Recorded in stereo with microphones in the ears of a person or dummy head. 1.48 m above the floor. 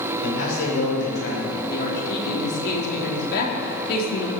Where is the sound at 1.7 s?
55° left (ahead or behind), 3 m.